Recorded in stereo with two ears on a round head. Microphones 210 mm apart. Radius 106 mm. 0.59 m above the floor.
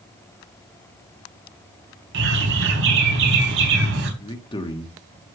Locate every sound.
2.1 s a bird: 55° right (ahead or behind), 3.5 m
4.2 s a man speaking: 20° left (ahead or behind), 1.3 m